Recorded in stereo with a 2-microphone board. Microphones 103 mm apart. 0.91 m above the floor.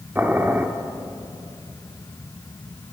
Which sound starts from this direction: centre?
Boiling, at 0.1 s.